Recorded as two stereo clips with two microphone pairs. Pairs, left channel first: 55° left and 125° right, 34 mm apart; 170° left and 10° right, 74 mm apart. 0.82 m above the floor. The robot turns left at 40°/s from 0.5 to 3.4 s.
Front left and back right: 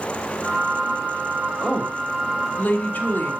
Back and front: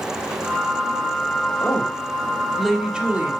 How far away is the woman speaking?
About 2.5 m.